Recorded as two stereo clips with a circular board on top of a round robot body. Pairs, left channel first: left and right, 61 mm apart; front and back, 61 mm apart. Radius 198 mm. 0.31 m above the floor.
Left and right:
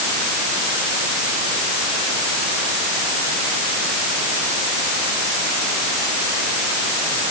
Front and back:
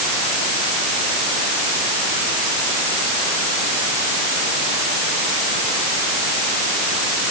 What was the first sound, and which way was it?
Only background noise.